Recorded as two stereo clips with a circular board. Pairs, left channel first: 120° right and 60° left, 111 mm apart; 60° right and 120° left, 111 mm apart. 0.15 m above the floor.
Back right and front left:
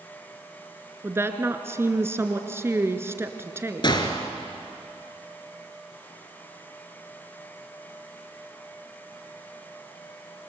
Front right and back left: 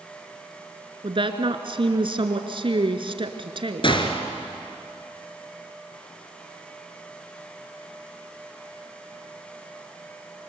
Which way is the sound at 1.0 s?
120° left.